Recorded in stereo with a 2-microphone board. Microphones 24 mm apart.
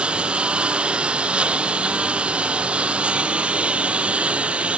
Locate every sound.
0.0 s a lawn mower: 45° right (ahead or behind); by 4.8 s 55° right (ahead or behind)